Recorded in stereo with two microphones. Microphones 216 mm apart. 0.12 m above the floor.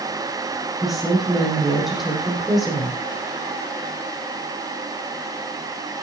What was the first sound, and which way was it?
A woman speaking, centre (ahead or behind).